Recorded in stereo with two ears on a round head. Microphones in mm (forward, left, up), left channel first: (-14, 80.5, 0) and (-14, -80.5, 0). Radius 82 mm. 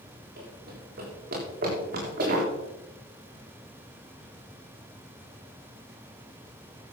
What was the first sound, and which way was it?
Running footsteps, 60° right (ahead or behind).